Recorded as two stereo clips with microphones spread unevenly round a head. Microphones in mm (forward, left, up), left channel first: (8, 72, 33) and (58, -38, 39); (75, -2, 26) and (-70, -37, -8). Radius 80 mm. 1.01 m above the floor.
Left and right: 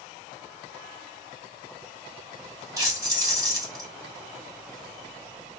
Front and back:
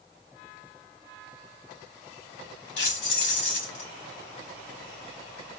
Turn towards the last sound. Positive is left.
turn(degrees=0)